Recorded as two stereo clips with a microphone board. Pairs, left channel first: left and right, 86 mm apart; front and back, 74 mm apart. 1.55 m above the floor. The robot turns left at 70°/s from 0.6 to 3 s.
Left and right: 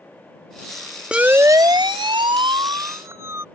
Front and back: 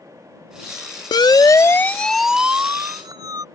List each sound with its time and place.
1.1 s a siren: 10° right; by 3.4 s 150° right